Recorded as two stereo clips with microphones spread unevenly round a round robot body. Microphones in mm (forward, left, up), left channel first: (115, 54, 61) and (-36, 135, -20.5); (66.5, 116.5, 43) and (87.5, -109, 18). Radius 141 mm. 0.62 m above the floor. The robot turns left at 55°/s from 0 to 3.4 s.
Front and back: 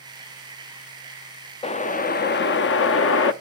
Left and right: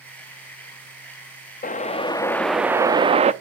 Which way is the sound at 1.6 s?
50° left.